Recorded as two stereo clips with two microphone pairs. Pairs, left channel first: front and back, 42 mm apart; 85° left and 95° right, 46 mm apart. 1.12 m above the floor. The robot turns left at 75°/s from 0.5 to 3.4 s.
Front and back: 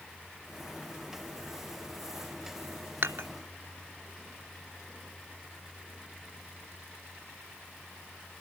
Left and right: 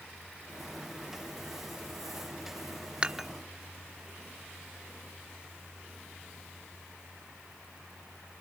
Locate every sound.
3.0 s dishes clattering: 165° right; by 3.3 s 175° left